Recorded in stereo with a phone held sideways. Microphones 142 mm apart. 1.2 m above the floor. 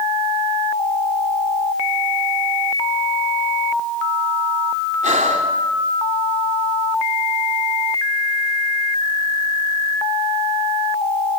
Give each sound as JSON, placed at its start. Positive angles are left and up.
{"t": 5.0, "sound": "breathing", "side_deg": -60, "distance_m": 3.5}